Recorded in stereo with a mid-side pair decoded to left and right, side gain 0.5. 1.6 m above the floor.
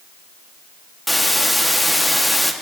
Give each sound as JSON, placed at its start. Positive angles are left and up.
{"t": 1.1, "sound": "a hiss", "azimuth_deg": 5, "distance_m": 1.8}